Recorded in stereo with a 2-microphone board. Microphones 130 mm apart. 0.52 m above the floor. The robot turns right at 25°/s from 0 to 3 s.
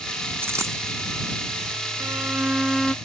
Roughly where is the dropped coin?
Centre.